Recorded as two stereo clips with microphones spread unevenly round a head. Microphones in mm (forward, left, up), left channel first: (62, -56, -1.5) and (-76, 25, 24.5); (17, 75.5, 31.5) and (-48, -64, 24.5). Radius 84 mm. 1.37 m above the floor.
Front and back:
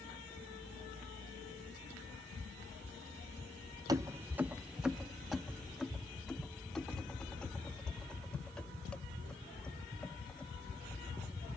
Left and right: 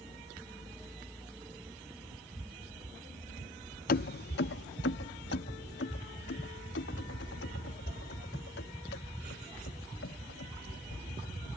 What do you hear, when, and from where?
3.9 s keys jangling: 85° left; by 11.5 s 55° left